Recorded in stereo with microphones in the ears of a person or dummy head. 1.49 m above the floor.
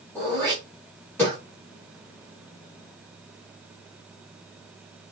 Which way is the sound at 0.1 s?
10° left (ahead or behind).